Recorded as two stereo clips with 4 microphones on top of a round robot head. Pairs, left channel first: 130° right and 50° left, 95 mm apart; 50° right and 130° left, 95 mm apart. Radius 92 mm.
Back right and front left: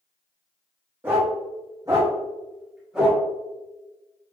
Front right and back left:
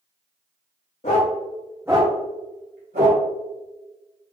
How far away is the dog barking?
About 0.7 m.